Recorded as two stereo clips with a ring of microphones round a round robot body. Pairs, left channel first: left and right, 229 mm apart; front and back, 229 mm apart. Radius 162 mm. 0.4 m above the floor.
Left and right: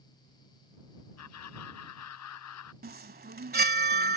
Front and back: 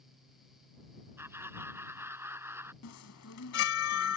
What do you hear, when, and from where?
1.2 s laughter: 100° left
2.8 s a chime: 40° right